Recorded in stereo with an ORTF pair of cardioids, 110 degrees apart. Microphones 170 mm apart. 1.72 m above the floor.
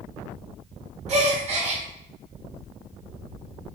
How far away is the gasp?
About 1.0 m.